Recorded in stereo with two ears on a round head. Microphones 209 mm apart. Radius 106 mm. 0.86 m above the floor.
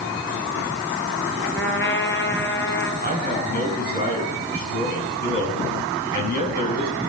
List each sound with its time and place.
1.6 s a trumpet: 55° left (ahead or behind), 4 m
3.0 s a man speaking: 40° left (ahead or behind), 7 m